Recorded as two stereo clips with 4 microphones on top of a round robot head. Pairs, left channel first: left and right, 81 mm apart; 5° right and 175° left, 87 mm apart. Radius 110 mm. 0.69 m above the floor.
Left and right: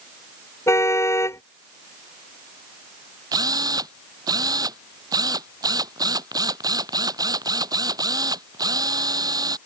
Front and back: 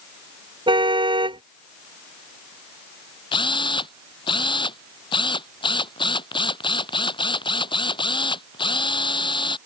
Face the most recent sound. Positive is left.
turn(degrees=-40)